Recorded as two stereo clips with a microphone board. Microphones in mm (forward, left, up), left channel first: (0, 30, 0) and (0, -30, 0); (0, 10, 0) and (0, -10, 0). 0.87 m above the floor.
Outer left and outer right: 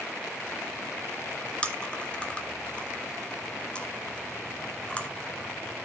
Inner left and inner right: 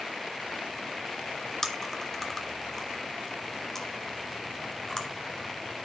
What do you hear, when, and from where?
1.6 s chewing: 15° left (ahead or behind), 1.1 m